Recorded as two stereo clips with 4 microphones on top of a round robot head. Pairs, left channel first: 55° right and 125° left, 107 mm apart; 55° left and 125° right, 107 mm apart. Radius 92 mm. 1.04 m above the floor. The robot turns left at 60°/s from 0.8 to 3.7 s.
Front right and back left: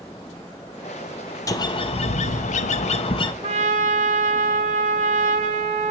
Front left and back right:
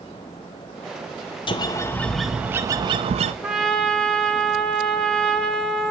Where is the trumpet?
155° left, 1.0 m; by 5.9 s 140° left, 1.0 m.